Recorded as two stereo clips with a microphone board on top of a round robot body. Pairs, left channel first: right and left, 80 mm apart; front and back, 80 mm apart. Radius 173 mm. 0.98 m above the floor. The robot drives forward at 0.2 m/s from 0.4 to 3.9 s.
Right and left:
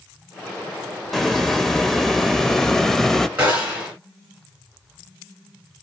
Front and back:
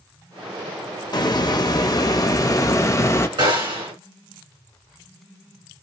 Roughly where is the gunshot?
Behind.